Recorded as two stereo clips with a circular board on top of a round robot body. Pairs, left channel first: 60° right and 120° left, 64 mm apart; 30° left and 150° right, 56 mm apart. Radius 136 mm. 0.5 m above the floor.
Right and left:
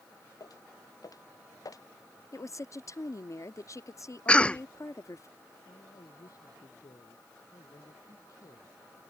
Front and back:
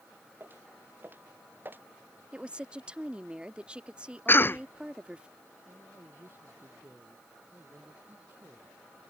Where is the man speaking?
95° right.